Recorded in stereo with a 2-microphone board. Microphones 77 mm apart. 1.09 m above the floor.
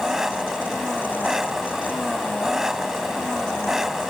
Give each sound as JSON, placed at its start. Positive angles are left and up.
{"t": 0.0, "sound": "an engine running", "side_deg": -5}